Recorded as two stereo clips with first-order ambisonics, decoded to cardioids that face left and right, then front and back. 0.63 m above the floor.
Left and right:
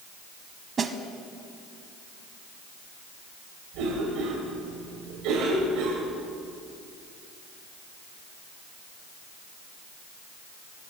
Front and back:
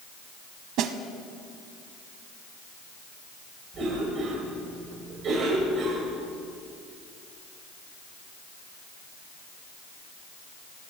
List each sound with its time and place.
0.8 s a snare drum: 155° right, 0.7 m
3.7 s a cough: 120° right, 2.5 m